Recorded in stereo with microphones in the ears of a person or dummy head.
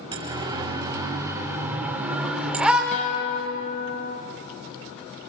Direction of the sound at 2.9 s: 35° left (ahead or behind).